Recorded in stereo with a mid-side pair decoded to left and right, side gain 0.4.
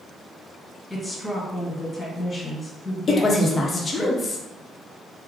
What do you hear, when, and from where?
0.9 s a woman speaking: 20° left, 1.9 m
3.1 s a woman speaking: 40° left, 1.0 m